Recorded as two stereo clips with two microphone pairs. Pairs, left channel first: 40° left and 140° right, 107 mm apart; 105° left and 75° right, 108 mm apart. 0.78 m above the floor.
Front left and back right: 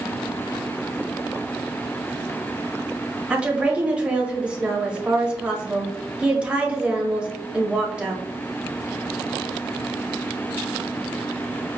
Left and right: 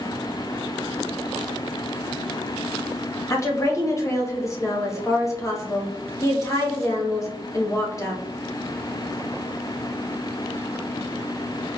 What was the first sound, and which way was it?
A woman speaking, 145° left.